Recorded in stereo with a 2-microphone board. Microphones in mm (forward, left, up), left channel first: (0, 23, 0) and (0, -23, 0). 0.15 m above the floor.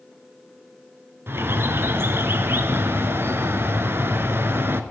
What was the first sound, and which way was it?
A bird, 55° right (ahead or behind).